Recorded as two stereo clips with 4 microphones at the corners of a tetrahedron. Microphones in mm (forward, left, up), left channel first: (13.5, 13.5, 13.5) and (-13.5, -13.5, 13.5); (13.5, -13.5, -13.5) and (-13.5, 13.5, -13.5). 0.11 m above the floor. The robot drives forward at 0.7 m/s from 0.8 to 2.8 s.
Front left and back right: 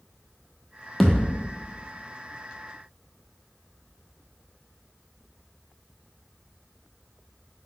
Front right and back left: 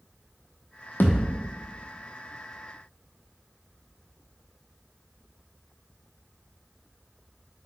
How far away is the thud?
About 0.9 m.